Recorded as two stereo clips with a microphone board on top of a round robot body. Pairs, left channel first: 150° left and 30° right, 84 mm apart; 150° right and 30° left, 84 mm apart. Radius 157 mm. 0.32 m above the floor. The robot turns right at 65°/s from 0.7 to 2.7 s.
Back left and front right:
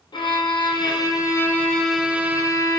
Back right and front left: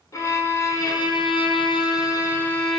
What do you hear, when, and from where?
0.1 s a violin: 160° left, 0.6 m; by 2.8 s 70° right, 0.6 m